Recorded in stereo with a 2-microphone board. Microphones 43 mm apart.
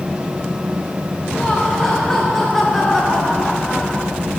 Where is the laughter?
10° left (ahead or behind), 2 m; by 4.1 s centre (ahead or behind), 0.6 m.